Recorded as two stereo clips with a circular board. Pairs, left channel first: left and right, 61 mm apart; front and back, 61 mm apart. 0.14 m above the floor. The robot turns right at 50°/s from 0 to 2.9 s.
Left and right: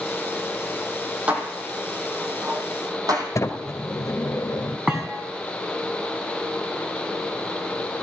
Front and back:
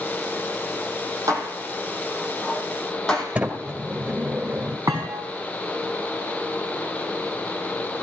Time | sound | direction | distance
1.3 | dishes clattering | 160° right | 4 m
3.4 | a sliding door | 120° left | 2.0 m
4.9 | a thud | 165° right | 4.5 m